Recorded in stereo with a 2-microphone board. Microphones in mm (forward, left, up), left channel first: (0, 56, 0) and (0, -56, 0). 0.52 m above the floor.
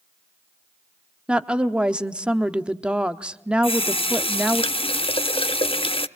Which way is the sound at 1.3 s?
10° right (ahead or behind).